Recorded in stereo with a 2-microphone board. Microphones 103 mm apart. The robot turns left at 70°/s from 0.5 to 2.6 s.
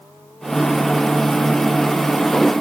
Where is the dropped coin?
I don't hear a dropped coin.